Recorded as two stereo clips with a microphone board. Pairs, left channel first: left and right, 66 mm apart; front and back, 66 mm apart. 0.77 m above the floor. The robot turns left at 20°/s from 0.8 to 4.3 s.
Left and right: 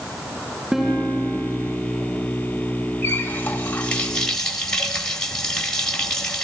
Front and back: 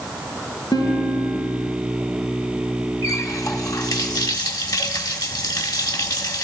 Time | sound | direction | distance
0.7 | a guitar | 5° right | 6 m
3.0 | a running tap | 35° left | 2 m